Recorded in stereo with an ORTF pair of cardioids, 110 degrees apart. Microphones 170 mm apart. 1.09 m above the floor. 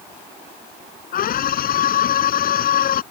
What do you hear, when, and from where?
1.1 s a scream: 60° left